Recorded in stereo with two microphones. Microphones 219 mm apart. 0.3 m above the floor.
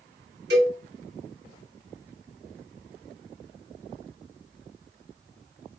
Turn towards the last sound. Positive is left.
turn(degrees=-50)  # may be behind; listen again after turning